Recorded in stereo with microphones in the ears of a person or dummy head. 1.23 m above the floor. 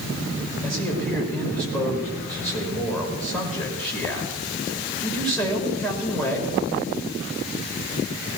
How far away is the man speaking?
About 5 m.